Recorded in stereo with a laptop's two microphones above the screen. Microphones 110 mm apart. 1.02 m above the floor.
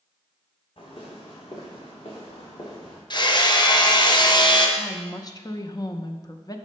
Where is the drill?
I don't hear a drill.